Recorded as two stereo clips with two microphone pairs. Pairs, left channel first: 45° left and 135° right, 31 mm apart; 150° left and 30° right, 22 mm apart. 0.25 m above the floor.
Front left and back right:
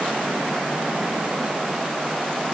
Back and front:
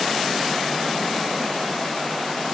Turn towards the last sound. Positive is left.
No sound to turn to.